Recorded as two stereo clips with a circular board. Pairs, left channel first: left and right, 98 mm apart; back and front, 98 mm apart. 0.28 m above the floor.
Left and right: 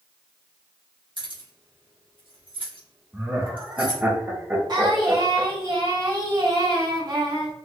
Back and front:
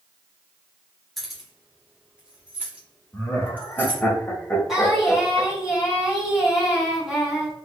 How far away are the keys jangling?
About 1.3 m.